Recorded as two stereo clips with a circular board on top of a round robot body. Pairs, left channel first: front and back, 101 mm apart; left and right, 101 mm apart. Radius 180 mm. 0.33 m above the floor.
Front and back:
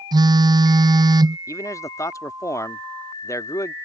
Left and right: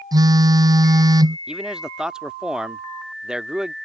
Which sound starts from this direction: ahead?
A man speaking, at 1.5 s.